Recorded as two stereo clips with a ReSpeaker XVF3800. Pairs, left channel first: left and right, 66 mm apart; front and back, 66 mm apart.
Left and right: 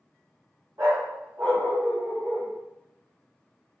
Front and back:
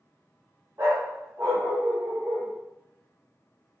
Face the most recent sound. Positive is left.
turn(degrees=-150)